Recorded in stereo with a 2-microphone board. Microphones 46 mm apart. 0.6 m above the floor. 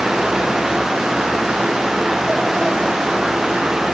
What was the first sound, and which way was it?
Only background noise.